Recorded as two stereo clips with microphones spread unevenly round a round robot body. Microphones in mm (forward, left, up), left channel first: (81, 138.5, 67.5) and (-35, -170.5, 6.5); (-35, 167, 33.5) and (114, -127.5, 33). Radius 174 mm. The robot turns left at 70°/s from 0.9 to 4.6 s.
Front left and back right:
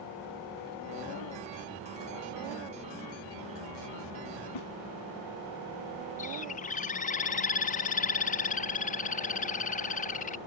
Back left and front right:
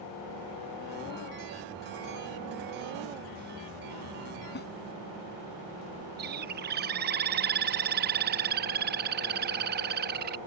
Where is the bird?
5° right.